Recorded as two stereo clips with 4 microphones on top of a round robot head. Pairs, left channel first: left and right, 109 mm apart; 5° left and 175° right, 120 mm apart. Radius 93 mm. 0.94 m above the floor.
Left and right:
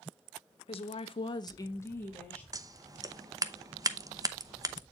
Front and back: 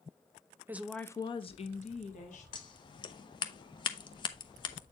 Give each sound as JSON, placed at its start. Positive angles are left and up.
{"t": 0.7, "sound": "a woman speaking", "azimuth_deg": 115, "distance_m": 0.9}
{"t": 2.5, "sound": "scissors", "azimuth_deg": -40, "distance_m": 0.8}